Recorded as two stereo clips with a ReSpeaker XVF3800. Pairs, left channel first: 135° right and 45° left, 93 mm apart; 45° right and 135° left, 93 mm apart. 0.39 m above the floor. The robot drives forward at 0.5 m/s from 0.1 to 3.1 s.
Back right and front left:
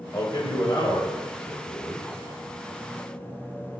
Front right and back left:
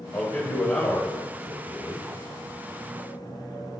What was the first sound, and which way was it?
A man speaking, 100° right.